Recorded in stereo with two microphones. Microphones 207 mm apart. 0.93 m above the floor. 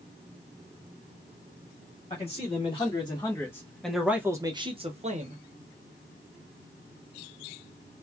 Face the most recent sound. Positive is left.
turn(degrees=-40)  # may be behind; listen again after turning